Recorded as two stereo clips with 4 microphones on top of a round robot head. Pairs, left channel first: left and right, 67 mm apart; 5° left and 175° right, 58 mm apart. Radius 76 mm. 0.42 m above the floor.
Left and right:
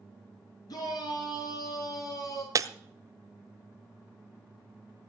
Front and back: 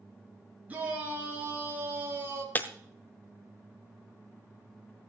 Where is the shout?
120° left, 6 m; by 2.5 s 135° left, 5 m.